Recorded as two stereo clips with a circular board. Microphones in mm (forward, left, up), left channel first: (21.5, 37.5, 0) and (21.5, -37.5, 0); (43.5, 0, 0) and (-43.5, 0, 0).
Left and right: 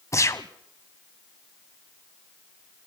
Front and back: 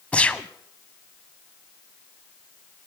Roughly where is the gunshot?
Left.